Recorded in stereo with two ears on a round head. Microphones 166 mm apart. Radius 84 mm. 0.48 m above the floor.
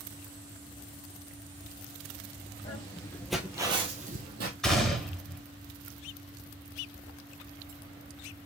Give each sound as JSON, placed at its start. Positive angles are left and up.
{"t": 2.6, "sound": "footsteps", "side_deg": 35, "distance_m": 1.1}
{"t": 4.6, "sound": "a gunshot", "side_deg": 5, "distance_m": 1.7}